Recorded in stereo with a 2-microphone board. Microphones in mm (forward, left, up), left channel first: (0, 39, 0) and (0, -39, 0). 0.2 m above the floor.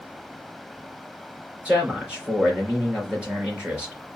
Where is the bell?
I don't hear a bell.